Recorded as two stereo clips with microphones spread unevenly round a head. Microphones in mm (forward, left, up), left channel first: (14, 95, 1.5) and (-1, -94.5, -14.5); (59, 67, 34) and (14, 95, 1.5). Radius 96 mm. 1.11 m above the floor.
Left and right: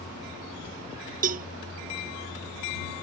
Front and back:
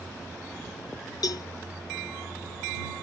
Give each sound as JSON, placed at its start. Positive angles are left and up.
{"t": 1.2, "sound": "a cowbell", "azimuth_deg": -45}